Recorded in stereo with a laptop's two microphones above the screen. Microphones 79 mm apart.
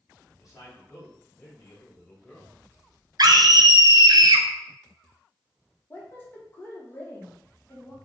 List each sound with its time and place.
0.3 s a man speaking: 45° left (ahead or behind), 1.8 m; by 2.5 s 5° left (ahead or behind), 1.1 m
3.2 s a scream: 55° right (ahead or behind), 0.6 m
5.9 s a woman speaking: 25° left (ahead or behind), 0.9 m